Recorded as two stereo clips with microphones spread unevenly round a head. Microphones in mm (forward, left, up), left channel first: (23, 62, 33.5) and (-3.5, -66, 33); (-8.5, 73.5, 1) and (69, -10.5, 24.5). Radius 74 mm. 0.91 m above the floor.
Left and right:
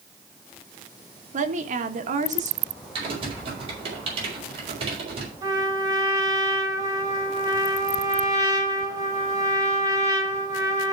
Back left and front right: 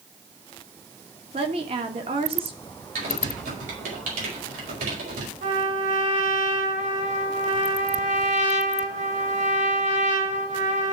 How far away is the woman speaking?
About 1.4 m.